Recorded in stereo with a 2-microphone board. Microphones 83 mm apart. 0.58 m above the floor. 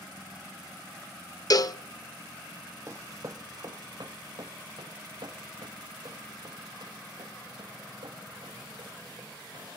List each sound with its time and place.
1.5 s a cowbell: 50° left (ahead or behind), 0.6 m
2.9 s running footsteps: 35° right (ahead or behind), 1.2 m; by 9.7 s 75° right (ahead or behind), 9.5 m